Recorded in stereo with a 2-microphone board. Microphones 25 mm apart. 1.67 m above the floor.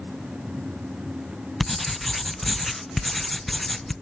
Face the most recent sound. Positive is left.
turn(degrees=5)  # may be behind; listen again after turning